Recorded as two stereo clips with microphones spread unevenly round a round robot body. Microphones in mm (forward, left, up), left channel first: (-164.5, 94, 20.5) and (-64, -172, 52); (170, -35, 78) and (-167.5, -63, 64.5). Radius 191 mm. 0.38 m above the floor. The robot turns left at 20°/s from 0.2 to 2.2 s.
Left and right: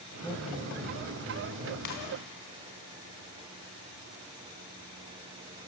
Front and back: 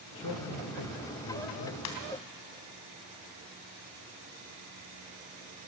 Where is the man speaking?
20° left, 2 m; by 1.8 s 10° right, 2 m.